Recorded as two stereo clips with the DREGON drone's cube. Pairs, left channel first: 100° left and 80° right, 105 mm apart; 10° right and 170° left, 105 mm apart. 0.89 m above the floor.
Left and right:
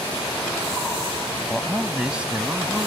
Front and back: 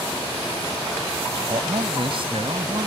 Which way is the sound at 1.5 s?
165° right.